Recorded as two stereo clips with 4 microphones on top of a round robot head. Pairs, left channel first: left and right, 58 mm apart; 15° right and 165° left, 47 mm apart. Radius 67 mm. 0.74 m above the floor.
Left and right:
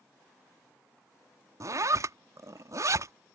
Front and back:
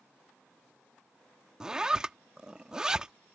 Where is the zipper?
120° right.